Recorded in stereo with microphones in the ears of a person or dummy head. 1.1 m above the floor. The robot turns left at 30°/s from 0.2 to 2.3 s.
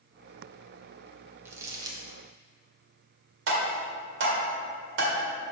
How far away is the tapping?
About 1.7 m.